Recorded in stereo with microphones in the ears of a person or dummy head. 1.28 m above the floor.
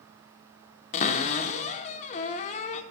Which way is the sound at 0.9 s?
35° left (ahead or behind).